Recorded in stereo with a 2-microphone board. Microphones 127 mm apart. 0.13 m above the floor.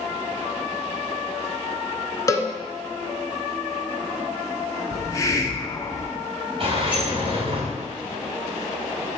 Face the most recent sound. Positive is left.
turn(degrees=-45)  # may be behind; listen again after turning